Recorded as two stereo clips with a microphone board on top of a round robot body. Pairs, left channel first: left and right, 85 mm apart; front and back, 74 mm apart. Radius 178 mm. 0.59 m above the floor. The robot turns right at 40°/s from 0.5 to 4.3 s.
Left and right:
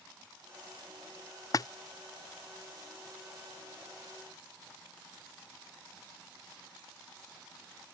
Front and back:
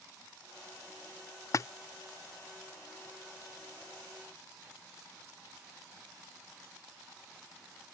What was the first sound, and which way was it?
A splash, 45° left.